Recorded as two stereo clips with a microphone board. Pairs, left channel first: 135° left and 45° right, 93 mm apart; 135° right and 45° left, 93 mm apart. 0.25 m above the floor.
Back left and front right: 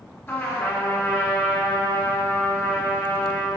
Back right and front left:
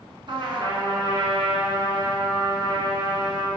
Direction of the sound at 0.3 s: 75° left.